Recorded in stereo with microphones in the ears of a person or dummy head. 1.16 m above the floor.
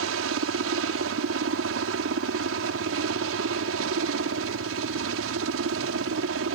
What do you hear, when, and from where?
0.0 s a helicopter: 65° right (ahead or behind)